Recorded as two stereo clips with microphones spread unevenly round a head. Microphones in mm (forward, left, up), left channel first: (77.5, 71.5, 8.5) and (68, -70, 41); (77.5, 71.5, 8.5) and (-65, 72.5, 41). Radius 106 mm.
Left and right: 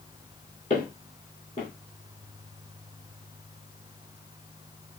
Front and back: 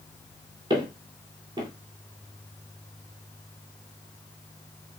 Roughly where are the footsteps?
Behind left.